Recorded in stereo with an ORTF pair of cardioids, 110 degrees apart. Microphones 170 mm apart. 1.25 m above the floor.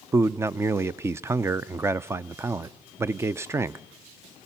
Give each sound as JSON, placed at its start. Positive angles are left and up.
{"t": 0.1, "sound": "a man speaking", "azimuth_deg": -15, "distance_m": 0.5}